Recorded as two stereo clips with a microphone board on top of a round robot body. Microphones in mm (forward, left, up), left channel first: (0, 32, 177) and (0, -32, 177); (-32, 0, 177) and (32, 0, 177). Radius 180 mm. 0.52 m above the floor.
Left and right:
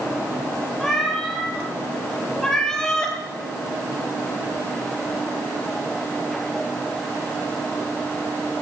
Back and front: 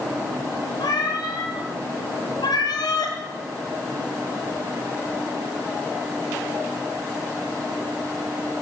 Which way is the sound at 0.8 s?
175° left.